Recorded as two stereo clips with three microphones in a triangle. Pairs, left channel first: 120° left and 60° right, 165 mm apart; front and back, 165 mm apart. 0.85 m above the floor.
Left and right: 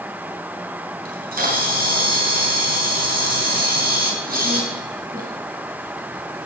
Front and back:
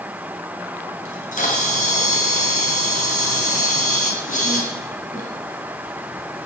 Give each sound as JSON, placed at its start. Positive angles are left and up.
{"t": 1.1, "sound": "a camera shutter", "azimuth_deg": -35, "distance_m": 3.5}